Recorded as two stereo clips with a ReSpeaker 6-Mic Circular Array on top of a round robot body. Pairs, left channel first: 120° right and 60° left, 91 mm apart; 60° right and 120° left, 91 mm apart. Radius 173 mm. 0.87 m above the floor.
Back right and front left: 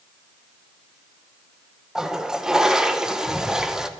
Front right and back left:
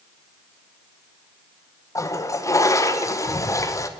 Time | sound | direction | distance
1.9 | a toilet flushing | 20° right | 1.0 m